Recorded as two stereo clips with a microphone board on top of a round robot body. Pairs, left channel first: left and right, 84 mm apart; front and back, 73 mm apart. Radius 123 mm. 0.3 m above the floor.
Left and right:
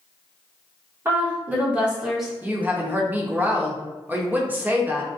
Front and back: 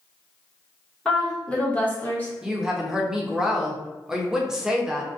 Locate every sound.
1.1 s a woman speaking: 70° right, 1.4 m; by 2.3 s 5° right, 1.3 m
2.4 s a woman speaking: 110° right, 0.9 m